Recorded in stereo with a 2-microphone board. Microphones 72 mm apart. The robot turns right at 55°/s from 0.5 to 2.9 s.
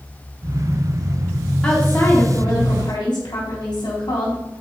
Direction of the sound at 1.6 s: 5° left.